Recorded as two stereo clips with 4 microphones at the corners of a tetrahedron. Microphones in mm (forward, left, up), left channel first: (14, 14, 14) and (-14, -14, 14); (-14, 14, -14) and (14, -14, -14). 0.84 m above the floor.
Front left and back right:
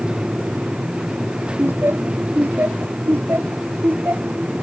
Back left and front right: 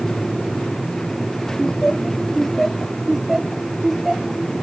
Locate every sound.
1.6 s laughter: 155° right; by 4.4 s 125° right